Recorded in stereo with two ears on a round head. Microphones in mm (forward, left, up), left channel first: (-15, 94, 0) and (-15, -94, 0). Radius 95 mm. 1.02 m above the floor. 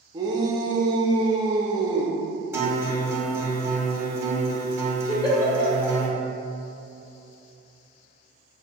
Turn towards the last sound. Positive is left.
turn(degrees=20)  # may be behind; listen again after turning